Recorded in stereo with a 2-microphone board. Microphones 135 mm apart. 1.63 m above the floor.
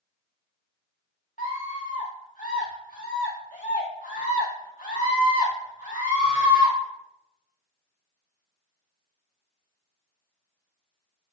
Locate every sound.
1.4 s a scream: 70° left (ahead or behind), 1.1 m